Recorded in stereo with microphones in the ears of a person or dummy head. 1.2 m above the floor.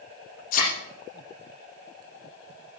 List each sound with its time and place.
0.5 s a thud: 50° left (ahead or behind), 5 m